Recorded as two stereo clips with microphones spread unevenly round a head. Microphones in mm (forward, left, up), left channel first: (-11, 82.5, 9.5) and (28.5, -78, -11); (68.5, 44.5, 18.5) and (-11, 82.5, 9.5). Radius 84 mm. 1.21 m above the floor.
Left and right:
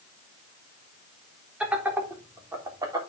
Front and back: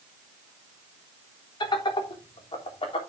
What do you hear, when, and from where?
1.6 s laughter: 5° left, 3.5 m; by 3.0 s 10° right, 3.5 m